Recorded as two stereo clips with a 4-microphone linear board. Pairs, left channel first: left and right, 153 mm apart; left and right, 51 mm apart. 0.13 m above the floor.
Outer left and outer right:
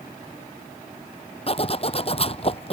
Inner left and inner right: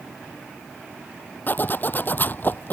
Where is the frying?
No frying in this recording.